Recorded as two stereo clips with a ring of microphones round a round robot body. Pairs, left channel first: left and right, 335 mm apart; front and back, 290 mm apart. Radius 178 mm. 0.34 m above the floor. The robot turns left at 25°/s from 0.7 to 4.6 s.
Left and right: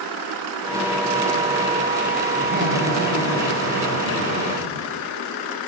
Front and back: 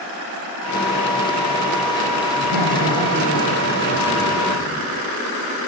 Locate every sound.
2.4 s laughter: 25° right, 9.5 m; by 4.9 s 80° right, 9.5 m